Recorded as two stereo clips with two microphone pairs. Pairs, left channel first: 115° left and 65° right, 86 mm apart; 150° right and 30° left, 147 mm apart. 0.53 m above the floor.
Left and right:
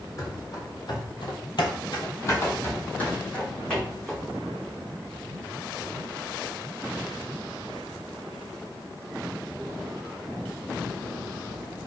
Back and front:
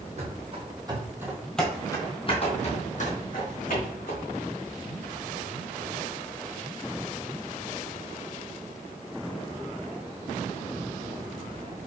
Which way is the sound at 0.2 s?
70° left.